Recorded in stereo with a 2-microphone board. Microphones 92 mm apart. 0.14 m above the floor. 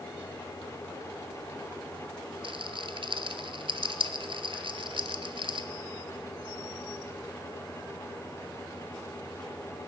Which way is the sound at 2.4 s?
70° right (ahead or behind).